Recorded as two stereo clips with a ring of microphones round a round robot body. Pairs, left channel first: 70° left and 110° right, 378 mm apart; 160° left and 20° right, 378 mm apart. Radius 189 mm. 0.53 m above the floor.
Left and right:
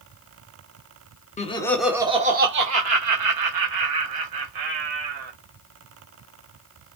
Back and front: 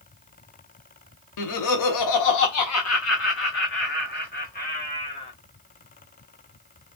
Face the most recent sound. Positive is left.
turn(degrees=-130)